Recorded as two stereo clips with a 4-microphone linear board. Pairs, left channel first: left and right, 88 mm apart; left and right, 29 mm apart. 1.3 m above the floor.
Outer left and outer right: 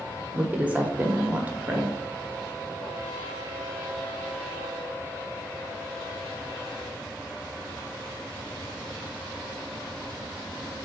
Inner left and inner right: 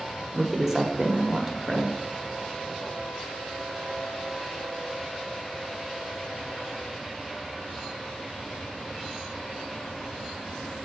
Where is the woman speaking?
15° right (ahead or behind), 0.9 m.